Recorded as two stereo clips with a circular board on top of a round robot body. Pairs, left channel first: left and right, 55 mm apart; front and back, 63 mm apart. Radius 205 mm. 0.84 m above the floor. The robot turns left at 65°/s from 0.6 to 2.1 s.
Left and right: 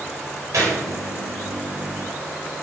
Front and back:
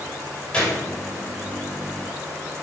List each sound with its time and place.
0.5 s a gunshot: 75° right, 3 m; by 0.8 s 90° right, 3 m